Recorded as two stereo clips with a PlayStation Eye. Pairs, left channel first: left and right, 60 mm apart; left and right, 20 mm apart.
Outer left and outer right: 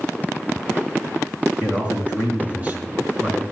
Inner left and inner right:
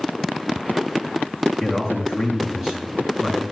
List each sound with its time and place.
1.6 s a man speaking: 25° right (ahead or behind), 5 m